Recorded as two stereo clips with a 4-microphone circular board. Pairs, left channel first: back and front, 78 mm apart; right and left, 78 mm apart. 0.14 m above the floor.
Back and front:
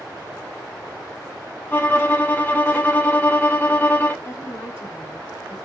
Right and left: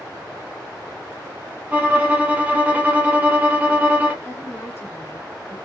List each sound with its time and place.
1.7 s a violin: 140° left, 0.6 m
4.2 s a woman speaking: 135° right, 1.4 m